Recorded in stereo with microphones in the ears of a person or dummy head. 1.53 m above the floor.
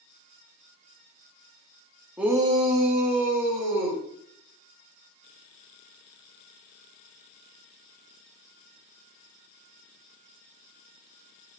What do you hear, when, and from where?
2.2 s a shout: 10° right (ahead or behind), 0.7 m; by 4.0 s 50° right (ahead or behind), 1.8 m